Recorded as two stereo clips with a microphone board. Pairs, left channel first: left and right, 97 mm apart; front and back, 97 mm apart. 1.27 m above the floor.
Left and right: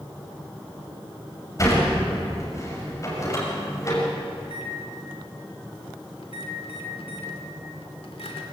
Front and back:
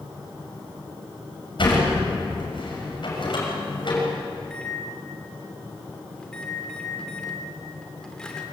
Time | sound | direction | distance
1.6 | a sliding door | 35° left | 6 m
4.4 | a microwave | 80° left | 2.5 m